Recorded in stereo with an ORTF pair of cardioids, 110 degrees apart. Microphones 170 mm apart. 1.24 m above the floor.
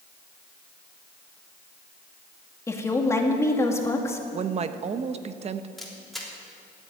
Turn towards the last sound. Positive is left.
turn(degrees=0)